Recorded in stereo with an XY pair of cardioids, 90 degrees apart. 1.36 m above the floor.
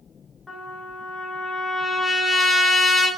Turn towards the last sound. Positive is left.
turn(degrees=20)